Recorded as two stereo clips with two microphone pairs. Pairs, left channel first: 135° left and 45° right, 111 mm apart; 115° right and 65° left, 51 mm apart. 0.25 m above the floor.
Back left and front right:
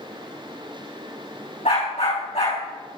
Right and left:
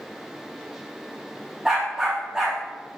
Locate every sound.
1.6 s a dog barking: 145° left, 6.5 m